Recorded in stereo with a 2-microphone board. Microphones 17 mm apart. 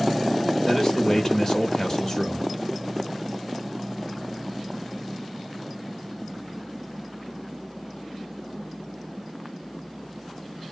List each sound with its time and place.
0.7 s a man speaking: 25° left (ahead or behind), 1.1 m